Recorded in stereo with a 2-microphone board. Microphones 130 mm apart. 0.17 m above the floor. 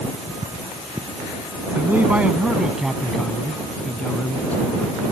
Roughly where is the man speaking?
Centre.